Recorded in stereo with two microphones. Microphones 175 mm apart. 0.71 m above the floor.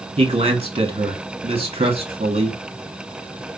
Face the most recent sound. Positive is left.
turn(degrees=-30)  # may be behind; listen again after turning